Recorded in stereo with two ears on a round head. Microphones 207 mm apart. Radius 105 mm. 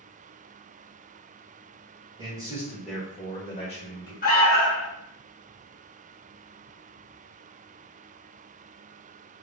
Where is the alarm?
35° left (ahead or behind), 0.7 m.